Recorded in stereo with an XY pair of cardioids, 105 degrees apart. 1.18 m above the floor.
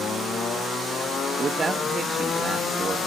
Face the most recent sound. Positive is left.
turn(degrees=-30)